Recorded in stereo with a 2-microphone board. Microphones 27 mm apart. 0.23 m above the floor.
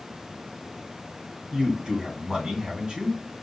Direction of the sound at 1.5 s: 25° right (ahead or behind).